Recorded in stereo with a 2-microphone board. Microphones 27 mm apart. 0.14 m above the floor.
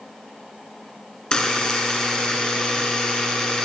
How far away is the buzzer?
About 1.9 m.